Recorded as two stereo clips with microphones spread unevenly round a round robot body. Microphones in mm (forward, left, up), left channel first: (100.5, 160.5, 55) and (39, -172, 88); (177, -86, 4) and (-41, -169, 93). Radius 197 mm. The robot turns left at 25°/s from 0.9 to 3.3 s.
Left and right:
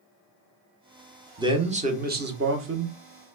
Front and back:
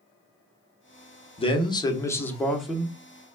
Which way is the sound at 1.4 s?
20° right.